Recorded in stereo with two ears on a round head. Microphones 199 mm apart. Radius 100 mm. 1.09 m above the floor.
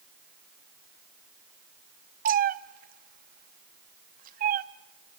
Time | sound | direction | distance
2.2 | a cat meowing | 40° right (ahead or behind) | 0.6 m